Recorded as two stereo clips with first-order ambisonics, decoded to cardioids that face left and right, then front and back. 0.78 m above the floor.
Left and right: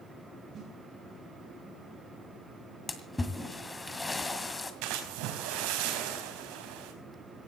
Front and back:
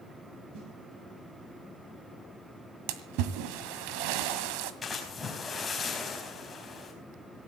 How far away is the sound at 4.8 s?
About 4.5 m.